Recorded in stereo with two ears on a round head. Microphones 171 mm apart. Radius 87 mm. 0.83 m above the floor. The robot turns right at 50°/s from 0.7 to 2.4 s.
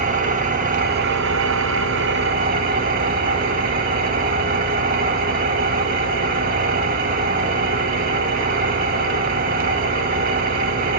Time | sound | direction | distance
0.0 | an engine running | 135° right | 1.1 m